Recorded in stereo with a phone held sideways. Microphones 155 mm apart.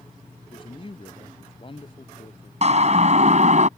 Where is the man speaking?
35° left (ahead or behind).